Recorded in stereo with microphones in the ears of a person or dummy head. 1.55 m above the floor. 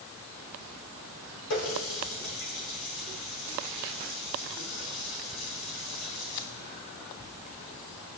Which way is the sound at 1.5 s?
65° left (ahead or behind).